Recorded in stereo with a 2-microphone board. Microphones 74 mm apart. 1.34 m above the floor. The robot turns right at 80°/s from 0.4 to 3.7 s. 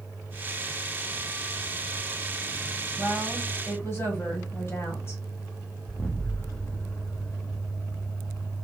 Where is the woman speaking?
25° right, 1.5 m; by 5.2 s 35° left, 1.5 m.